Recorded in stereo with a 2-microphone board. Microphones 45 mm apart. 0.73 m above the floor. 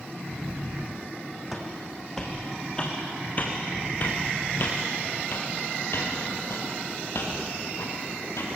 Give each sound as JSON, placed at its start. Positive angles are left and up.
{"t": 1.5, "sound": "footsteps", "side_deg": 0, "distance_m": 2.5}